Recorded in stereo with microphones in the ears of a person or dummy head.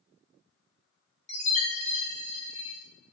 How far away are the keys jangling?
No keys jangling in this recording.